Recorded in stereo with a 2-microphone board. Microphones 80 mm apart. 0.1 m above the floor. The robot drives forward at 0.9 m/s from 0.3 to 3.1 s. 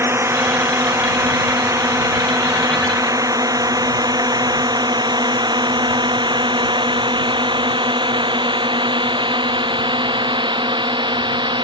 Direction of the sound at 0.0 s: 35° right (ahead or behind).